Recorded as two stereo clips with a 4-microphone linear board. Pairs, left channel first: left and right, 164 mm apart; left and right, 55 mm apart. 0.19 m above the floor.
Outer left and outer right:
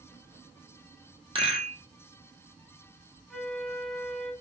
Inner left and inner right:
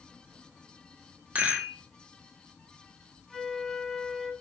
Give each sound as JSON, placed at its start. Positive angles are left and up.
{"t": 1.4, "sound": "a rattle", "side_deg": -35, "distance_m": 1.3}
{"t": 3.3, "sound": "a flute", "side_deg": 0, "distance_m": 0.9}